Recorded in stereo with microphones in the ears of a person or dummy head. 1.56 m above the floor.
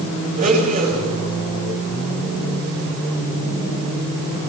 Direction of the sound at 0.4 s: 45° right (ahead or behind).